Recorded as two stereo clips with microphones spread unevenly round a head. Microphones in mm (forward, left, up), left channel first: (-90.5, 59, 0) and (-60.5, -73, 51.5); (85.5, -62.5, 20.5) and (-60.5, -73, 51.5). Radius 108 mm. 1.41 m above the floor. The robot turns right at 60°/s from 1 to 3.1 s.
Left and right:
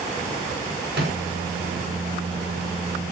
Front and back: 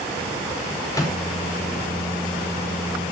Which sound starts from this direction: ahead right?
A microwave, at 0.9 s.